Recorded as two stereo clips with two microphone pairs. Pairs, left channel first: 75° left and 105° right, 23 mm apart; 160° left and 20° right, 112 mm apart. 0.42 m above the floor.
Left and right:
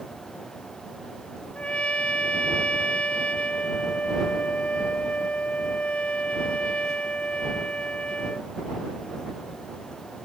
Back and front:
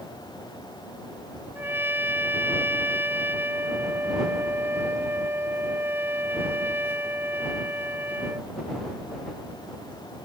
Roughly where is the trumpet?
Ahead left.